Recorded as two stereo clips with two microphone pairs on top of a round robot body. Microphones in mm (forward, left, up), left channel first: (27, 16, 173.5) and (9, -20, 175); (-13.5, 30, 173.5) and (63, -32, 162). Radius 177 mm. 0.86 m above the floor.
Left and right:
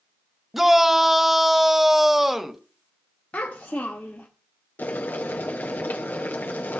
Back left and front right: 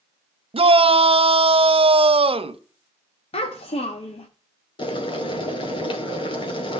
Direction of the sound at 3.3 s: 120° left.